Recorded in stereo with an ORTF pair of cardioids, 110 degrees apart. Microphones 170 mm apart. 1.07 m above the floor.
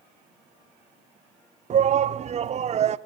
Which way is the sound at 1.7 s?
40° right.